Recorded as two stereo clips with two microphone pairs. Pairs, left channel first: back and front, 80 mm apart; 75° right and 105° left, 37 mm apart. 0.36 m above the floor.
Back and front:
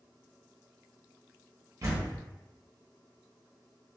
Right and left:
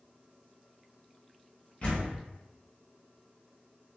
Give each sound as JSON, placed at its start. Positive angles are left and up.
{"t": 1.8, "sound": "a door slam", "azimuth_deg": -25, "distance_m": 1.1}